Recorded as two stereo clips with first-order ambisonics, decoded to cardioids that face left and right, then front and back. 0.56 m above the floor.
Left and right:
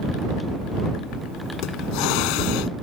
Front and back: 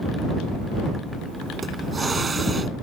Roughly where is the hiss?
Left.